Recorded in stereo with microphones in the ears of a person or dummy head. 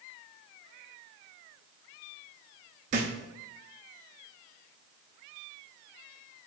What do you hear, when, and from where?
2.9 s a thud: 40° right (ahead or behind), 0.7 m